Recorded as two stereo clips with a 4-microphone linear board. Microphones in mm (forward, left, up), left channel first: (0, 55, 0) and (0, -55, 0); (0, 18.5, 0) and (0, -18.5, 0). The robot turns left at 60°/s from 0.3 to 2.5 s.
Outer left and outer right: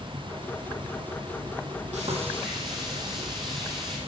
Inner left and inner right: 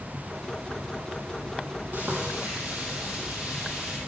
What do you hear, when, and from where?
1.9 s frying: 105° right, 4 m; by 4.0 s 140° right, 4 m